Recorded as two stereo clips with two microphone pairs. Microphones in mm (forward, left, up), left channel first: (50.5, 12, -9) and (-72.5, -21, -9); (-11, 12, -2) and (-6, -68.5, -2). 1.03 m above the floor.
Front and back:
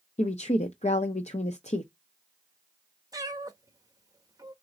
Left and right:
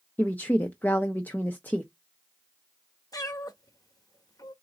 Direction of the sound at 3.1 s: 135° left.